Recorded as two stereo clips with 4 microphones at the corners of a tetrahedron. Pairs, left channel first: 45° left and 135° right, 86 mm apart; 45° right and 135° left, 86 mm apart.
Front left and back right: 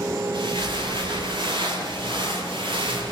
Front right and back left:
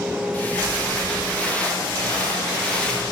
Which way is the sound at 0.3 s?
115° right.